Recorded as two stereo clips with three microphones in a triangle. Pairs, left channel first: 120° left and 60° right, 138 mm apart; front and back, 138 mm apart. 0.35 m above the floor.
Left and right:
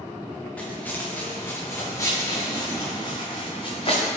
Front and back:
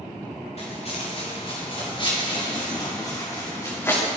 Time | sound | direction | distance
0.6 | footsteps | 40° left | 3.5 m